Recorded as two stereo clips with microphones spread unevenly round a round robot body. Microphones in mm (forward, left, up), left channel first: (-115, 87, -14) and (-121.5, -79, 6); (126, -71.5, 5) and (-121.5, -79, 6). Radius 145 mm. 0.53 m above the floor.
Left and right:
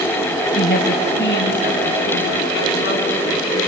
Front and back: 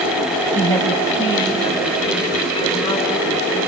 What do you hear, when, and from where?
0.6 s a woman speaking: 85° left, 3 m; by 3.6 s 70° left, 6.5 m